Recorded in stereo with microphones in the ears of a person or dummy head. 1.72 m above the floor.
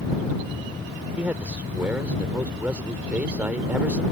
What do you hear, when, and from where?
1.2 s a man speaking: 5° right (ahead or behind)